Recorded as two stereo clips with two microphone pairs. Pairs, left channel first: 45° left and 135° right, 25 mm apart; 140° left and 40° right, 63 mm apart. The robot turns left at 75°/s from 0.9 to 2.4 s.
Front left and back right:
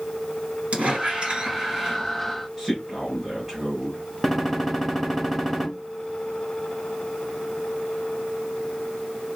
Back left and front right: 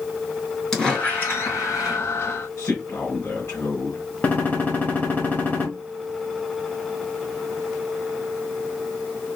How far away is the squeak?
About 3.5 m.